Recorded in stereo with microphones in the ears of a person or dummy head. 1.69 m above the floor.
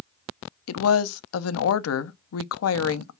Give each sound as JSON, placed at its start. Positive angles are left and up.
{"t": 0.7, "sound": "a woman speaking", "side_deg": 75, "distance_m": 0.6}